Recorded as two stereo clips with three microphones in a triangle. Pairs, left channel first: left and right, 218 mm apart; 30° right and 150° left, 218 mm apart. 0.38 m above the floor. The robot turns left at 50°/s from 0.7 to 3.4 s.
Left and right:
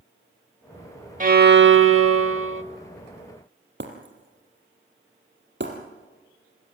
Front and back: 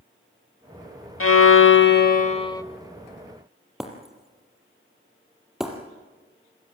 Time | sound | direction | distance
1.2 | a violin | 35° right | 0.6 m
3.8 | breaking glass | 120° right | 3 m